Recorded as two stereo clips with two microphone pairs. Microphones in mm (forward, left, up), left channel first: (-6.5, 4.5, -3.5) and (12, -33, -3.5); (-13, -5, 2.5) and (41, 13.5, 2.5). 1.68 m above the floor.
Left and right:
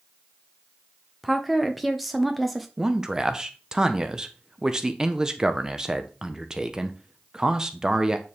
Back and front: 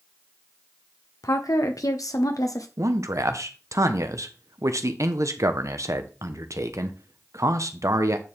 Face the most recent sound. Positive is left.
turn(degrees=10)